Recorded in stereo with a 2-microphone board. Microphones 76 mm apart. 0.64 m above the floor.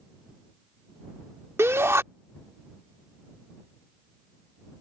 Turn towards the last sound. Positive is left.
turn(degrees=-35)  # may be behind; listen again after turning